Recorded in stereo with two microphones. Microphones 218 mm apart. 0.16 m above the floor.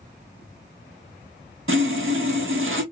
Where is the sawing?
80° right, 1.1 m.